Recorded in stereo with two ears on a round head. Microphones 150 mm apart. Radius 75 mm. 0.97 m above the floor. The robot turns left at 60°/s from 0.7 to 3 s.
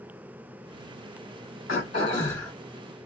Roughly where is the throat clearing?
Ahead left.